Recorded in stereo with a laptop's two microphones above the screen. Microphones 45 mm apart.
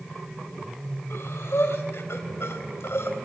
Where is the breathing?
80° left, 3 m.